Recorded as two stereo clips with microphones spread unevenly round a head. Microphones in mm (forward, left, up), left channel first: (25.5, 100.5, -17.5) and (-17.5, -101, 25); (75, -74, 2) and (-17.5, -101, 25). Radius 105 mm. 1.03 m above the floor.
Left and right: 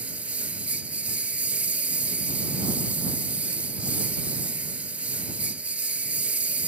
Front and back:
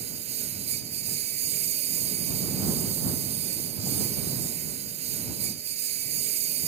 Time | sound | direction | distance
0.0 | a lawn mower | 175° left | ?